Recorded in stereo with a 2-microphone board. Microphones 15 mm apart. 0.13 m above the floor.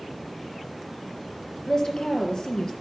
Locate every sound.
1.7 s a woman speaking: 45° left (ahead or behind), 2.5 m